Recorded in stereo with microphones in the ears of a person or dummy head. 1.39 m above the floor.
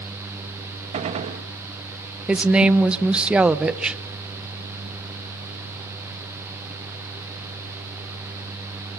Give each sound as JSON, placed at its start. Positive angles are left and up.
{"t": 0.9, "sound": "a gunshot", "side_deg": -30, "distance_m": 1.2}
{"t": 2.3, "sound": "a woman speaking", "side_deg": -10, "distance_m": 0.7}